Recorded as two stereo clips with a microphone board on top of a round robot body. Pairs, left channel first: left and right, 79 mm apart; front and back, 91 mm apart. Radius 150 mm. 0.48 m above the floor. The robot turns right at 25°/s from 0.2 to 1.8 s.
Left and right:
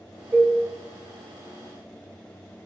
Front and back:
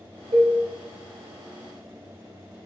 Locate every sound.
0.3 s a cowbell: 160° right, 1.0 m; by 0.6 s 155° right, 1.0 m